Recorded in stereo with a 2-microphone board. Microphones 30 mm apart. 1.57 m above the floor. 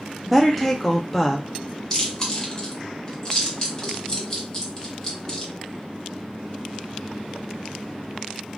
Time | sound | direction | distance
0.3 | a woman speaking | 5° left (ahead or behind) | 0.7 m
1.9 | chewing | 20° left (ahead or behind) | 1.5 m